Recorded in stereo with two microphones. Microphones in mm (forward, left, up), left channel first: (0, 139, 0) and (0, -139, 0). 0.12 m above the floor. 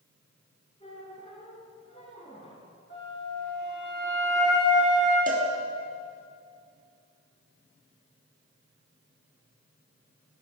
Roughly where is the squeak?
Left.